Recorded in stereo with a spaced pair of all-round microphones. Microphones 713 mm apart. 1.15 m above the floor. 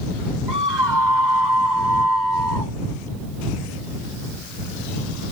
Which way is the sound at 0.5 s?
90° right.